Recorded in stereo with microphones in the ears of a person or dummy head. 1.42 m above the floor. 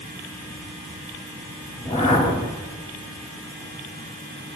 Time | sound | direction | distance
1.8 | a whoosh | 30° left (ahead or behind) | 2.5 m